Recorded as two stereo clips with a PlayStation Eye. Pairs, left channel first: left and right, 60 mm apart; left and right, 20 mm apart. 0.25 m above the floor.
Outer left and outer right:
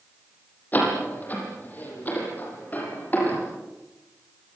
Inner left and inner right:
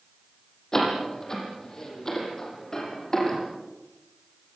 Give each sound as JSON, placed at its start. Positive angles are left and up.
{"t": 0.7, "sound": "a door slam", "side_deg": 30, "distance_m": 8.5}